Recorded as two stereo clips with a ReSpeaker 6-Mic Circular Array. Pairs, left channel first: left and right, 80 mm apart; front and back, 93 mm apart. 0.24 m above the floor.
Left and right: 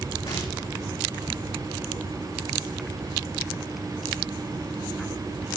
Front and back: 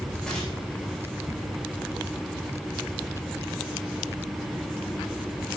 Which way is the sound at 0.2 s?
80° left.